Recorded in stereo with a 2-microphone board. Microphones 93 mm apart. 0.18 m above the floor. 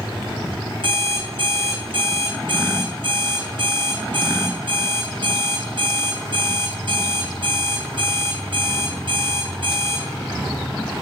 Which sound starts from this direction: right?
An alarm clock, at 0.8 s.